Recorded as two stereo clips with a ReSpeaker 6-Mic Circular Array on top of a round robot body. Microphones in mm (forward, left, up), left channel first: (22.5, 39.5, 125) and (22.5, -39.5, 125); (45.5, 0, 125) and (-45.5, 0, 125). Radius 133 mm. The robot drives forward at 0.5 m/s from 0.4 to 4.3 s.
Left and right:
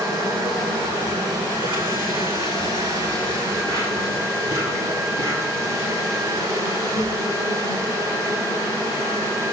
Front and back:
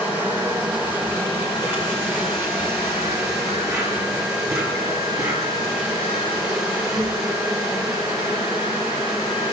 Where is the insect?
110° right, 5.5 m; by 9.5 s 125° right, 6.5 m.